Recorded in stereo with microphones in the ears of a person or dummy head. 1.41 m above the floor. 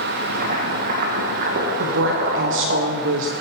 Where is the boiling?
45° right (ahead or behind), 1.4 m.